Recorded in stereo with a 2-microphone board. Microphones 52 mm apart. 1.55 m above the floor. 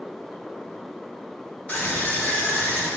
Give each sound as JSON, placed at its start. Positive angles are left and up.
{"t": 1.7, "sound": "a scream", "side_deg": 25, "distance_m": 7.0}